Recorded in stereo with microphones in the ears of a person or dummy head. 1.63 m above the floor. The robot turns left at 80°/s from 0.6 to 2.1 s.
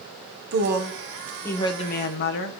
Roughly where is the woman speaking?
Behind right.